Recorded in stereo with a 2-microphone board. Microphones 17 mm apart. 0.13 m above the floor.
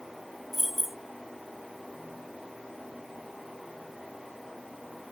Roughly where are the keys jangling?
Centre.